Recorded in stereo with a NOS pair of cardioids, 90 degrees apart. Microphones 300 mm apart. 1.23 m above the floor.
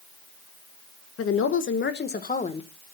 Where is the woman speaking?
55° left, 1.6 m; by 2.7 s 20° left, 1.3 m.